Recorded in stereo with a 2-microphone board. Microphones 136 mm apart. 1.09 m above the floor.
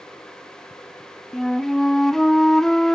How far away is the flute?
About 0.6 m.